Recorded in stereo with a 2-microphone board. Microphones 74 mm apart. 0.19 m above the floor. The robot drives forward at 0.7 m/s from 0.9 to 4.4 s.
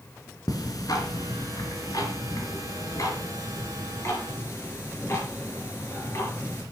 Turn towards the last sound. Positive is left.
turn(degrees=40)  # may be behind; listen again after turning